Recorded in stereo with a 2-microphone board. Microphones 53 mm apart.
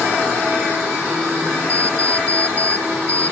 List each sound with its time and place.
1.7 s an alarm clock: 60° right (ahead or behind)